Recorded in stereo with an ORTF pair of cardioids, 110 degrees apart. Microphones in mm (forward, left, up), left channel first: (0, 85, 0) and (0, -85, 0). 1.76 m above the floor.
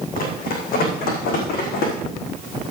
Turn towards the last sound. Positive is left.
turn(degrees=75)